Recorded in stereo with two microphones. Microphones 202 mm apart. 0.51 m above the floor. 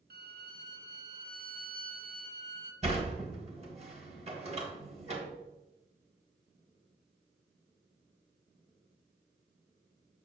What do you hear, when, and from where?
0.1 s a violin: 55° right (ahead or behind), 0.8 m
2.8 s a sliding door: 35° right (ahead or behind), 1.4 m